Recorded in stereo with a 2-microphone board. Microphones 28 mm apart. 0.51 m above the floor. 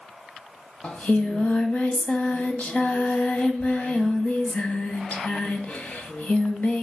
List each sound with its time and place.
0.8 s singing: 50° left (ahead or behind), 1.8 m